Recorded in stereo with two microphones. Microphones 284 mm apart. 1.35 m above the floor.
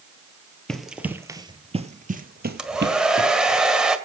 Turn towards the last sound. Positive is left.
turn(degrees=-5)  # may be behind; listen again after turning